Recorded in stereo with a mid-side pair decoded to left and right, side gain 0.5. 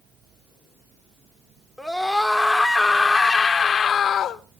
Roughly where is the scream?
Ahead.